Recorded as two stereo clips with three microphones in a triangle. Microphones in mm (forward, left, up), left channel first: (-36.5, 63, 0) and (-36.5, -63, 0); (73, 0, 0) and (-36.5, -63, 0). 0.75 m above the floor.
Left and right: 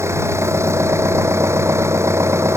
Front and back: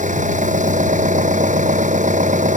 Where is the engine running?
160° right.